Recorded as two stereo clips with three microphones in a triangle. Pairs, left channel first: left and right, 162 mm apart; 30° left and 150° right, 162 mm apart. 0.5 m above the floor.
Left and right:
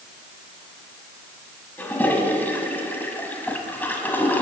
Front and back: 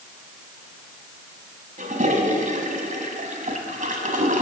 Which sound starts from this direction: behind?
A toilet flushing, at 1.8 s.